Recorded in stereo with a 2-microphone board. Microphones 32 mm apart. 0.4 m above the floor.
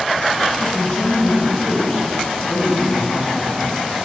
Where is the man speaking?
30° left (ahead or behind), 2 m; by 4.0 s 70° left (ahead or behind), 4 m.